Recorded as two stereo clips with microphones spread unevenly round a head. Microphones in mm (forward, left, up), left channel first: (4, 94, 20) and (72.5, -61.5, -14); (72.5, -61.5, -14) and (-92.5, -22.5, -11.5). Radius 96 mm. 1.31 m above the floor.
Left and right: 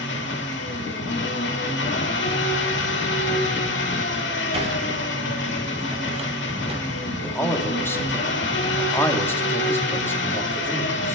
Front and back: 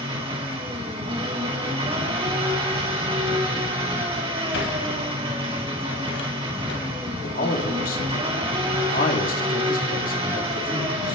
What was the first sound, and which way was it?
An engine running, 100° left.